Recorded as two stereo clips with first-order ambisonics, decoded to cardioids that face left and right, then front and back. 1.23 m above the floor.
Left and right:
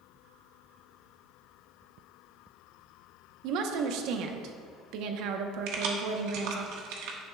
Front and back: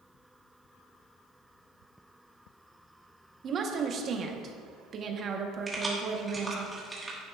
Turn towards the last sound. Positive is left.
turn(degrees=-100)